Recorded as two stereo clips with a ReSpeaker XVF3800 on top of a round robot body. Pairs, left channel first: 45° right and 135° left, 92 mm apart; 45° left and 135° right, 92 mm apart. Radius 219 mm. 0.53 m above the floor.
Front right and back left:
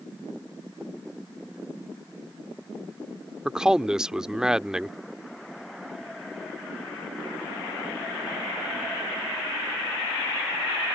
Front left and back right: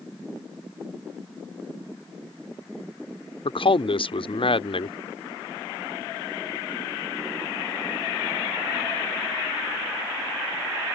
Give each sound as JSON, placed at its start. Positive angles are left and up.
{"t": 3.5, "sound": "a man speaking", "azimuth_deg": 50}